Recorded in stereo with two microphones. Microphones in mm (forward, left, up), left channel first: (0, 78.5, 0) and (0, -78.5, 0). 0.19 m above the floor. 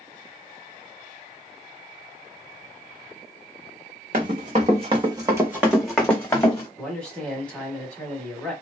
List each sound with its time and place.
4.1 s running footsteps: 55° right (ahead or behind), 1.1 m; by 6.7 s 20° left (ahead or behind), 1.2 m
6.8 s a man speaking: 5° left (ahead or behind), 1.0 m